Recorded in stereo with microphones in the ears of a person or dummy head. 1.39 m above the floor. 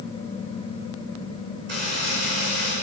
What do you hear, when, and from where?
1.7 s a buzzer: 50° right (ahead or behind), 7 m